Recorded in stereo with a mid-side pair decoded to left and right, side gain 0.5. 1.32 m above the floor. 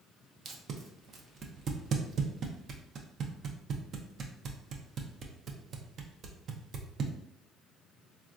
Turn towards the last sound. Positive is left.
turn(degrees=-50)